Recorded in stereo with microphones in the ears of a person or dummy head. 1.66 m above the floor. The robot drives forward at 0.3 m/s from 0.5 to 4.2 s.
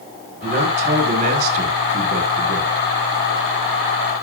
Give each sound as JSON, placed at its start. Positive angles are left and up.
{"t": 0.4, "sound": "a man speaking", "side_deg": -45, "distance_m": 2.0}